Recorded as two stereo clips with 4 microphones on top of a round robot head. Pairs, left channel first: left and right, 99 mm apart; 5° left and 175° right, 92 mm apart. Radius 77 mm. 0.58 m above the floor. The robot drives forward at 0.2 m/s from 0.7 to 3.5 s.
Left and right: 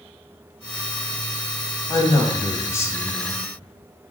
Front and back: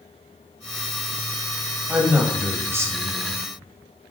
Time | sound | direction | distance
1.9 | a man speaking | 115° left | 0.7 m